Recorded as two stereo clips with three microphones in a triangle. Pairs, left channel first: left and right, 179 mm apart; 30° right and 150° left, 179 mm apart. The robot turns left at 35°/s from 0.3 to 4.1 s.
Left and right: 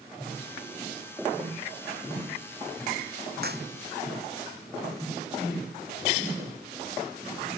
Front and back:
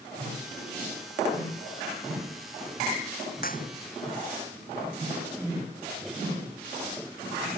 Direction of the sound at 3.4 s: 65° right.